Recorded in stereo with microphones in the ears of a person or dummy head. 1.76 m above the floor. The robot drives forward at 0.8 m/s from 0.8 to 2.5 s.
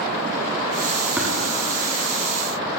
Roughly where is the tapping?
Centre.